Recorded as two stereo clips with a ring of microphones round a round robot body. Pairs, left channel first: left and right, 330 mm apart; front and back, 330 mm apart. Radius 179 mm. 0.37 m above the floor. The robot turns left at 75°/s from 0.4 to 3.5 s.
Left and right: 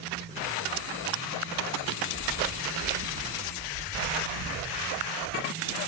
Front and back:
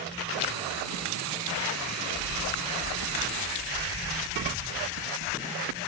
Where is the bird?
Straight behind, 1.1 m; by 5.8 s 80° left, 1.1 m.